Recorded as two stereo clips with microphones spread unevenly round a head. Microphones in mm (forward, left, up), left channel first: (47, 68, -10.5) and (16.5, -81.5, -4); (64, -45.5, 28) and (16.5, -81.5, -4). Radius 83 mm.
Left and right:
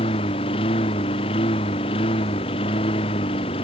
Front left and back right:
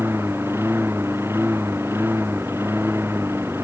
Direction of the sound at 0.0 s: 140° left.